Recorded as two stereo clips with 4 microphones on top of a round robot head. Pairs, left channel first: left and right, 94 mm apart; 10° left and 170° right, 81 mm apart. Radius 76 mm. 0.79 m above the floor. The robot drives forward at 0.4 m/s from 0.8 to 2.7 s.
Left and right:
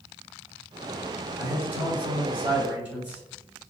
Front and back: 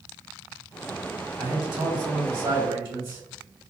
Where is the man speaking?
155° right, 1.8 m; by 3.2 s 165° right, 2.5 m.